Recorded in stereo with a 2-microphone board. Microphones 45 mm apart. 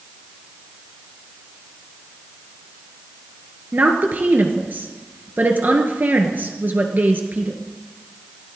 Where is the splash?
I don't hear a splash.